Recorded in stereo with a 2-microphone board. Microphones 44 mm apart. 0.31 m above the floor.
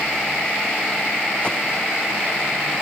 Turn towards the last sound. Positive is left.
turn(degrees=25)  # may be behind; listen again after turning